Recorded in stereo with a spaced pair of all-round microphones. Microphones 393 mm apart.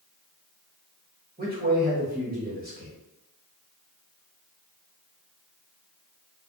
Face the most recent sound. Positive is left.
turn(degrees=-25)  # may be behind; listen again after turning